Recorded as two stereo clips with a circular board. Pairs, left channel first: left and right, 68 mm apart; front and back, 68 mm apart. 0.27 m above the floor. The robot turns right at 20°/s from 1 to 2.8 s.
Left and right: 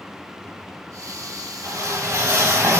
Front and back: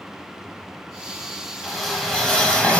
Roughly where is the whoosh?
Right.